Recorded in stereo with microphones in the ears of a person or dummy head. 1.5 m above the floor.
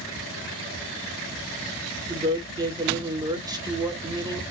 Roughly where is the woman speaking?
Right.